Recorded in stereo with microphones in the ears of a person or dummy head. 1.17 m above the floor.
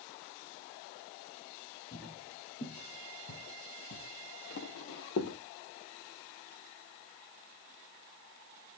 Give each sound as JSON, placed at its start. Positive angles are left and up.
{"t": 1.9, "sound": "footsteps", "side_deg": 15, "distance_m": 2.5}